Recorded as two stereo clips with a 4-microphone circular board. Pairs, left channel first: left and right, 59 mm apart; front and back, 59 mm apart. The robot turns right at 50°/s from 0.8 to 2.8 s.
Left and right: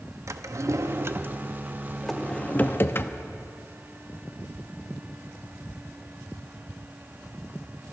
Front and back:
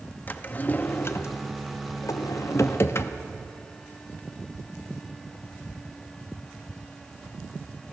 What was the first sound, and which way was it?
A drawer, 60° right.